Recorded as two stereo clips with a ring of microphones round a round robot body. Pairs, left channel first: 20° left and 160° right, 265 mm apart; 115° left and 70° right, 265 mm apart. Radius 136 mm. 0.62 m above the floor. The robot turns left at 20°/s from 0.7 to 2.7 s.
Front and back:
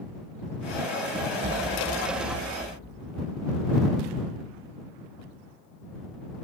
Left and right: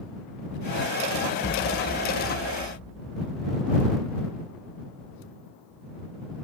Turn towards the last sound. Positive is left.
turn(degrees=135)